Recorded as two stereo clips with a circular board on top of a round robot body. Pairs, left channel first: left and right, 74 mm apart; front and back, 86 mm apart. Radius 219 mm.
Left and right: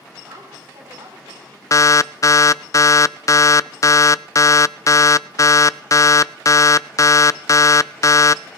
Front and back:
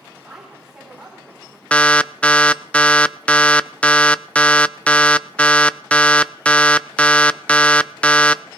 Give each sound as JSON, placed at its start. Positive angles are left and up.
{"t": 0.2, "sound": "a woman speaking", "azimuth_deg": -95, "distance_m": 4.0}
{"t": 1.7, "sound": "an alarm", "azimuth_deg": 70, "distance_m": 0.6}